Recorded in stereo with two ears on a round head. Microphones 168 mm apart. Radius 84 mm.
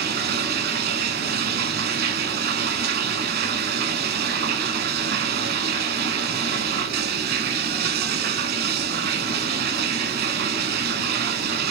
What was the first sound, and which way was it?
Running water, 55° right (ahead or behind).